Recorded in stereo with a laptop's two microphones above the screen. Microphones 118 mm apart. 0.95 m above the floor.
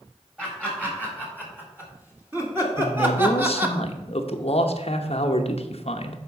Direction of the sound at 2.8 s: 60° left (ahead or behind).